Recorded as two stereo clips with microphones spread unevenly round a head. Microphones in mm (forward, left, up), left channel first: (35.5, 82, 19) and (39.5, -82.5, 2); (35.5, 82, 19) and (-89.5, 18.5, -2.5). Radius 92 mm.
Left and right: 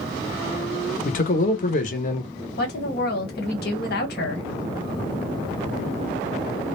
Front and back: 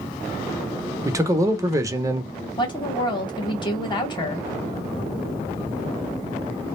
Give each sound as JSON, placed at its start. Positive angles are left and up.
{"t": 1.1, "sound": "a man speaking", "azimuth_deg": 140, "distance_m": 0.7}
{"t": 2.6, "sound": "a woman speaking", "azimuth_deg": 85, "distance_m": 1.3}